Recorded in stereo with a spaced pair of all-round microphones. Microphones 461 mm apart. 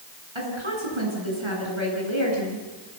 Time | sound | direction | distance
0.3 | a woman speaking | 85° right | 9.5 m